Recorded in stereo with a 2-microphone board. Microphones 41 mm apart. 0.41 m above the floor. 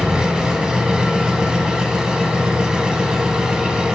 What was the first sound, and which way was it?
An engine running, 20° right (ahead or behind).